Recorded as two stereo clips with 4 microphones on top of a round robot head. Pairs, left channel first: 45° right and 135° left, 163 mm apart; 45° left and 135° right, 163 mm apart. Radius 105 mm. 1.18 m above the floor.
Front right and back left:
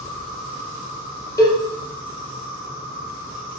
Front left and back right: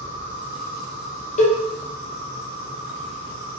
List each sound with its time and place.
0.0 s an insect: 85° right, 1.1 m
1.4 s a cowbell: 20° left, 0.6 m